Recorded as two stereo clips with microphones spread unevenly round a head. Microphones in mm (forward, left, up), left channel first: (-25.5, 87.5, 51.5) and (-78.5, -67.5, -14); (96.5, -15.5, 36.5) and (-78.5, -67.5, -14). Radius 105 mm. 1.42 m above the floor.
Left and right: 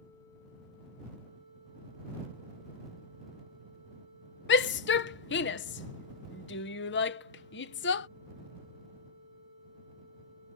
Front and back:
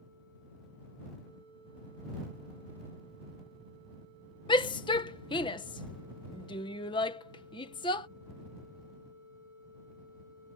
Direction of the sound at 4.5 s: 90° left.